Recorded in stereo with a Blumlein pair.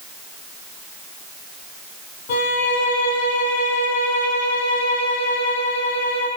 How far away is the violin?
About 6 m.